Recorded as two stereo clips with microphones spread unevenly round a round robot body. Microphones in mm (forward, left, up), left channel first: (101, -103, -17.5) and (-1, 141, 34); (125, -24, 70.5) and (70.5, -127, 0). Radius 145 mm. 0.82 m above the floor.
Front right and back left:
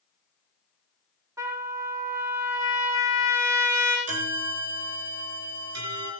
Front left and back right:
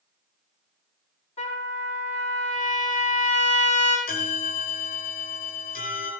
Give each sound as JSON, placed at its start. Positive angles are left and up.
{"t": 1.4, "sound": "a trumpet", "azimuth_deg": 30, "distance_m": 5.0}
{"t": 4.1, "sound": "a bell", "azimuth_deg": 80, "distance_m": 5.0}